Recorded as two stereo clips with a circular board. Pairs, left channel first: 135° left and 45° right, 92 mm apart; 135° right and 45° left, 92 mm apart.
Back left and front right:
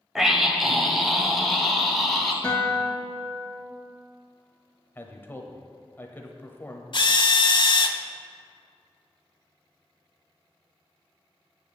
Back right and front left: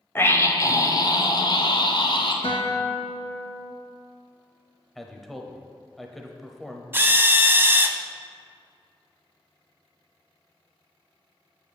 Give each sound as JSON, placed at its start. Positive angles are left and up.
{"t": 0.1, "sound": "a scream", "azimuth_deg": -125, "distance_m": 1.3}
{"t": 2.4, "sound": "a guitar", "azimuth_deg": -150, "distance_m": 1.9}
{"t": 5.0, "sound": "a man speaking", "azimuth_deg": 140, "distance_m": 1.1}
{"t": 6.9, "sound": "a drill", "azimuth_deg": 110, "distance_m": 0.7}